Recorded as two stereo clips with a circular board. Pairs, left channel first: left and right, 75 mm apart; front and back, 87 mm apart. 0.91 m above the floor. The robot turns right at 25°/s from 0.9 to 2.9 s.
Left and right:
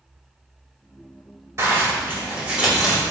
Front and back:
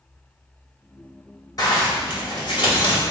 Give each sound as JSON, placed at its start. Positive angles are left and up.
{"t": 1.6, "sound": "a zipper", "azimuth_deg": -45, "distance_m": 2.5}